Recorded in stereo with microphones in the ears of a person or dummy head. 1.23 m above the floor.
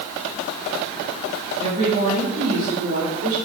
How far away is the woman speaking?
About 2 m.